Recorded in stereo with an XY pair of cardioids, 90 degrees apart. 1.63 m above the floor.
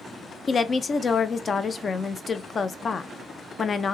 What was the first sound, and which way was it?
A woman speaking, 45° left.